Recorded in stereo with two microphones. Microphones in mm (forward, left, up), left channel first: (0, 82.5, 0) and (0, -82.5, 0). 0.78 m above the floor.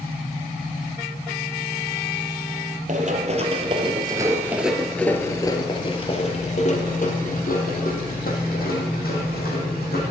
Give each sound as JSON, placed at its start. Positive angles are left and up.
{"t": 2.9, "sound": "running footsteps", "side_deg": -50, "distance_m": 1.3}